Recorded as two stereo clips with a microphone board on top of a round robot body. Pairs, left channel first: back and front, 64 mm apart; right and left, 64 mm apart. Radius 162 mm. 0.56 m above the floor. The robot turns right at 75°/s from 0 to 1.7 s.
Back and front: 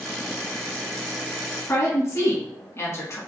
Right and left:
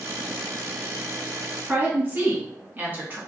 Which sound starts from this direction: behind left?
A woman speaking, at 1.6 s.